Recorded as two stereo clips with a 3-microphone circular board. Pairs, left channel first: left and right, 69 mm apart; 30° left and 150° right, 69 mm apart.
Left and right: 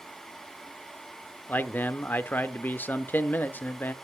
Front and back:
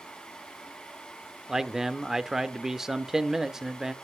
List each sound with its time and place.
1.5 s a man speaking: 130° left, 0.8 m